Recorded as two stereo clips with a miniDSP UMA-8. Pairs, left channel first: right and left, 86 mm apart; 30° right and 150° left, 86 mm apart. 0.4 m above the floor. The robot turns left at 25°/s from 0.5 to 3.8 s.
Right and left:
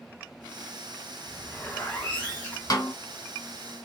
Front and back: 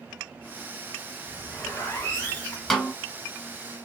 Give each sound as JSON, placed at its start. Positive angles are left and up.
{"t": 1.2, "sound": "a zipper", "azimuth_deg": -25, "distance_m": 1.3}
{"t": 2.7, "sound": "a snare drum", "azimuth_deg": -120, "distance_m": 0.8}